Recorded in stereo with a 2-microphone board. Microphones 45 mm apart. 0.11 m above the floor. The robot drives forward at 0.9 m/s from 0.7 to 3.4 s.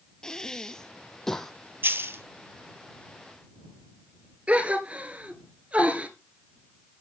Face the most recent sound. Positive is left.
turn(degrees=-25)  # may be behind; listen again after turning